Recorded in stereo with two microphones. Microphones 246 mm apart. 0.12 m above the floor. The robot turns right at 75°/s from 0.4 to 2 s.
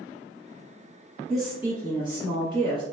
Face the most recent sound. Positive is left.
turn(degrees=-20)  # may be behind; listen again after turning